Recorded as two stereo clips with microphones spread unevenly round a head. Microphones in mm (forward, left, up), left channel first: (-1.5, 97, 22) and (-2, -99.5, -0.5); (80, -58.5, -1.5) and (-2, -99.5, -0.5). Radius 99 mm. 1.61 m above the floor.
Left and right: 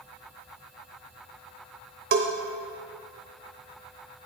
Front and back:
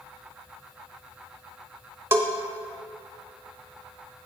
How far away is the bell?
About 1.0 m.